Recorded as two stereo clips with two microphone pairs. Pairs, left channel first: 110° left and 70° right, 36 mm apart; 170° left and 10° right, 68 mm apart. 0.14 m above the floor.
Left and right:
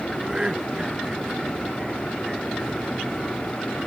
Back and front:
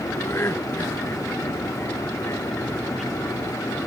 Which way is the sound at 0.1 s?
140° right.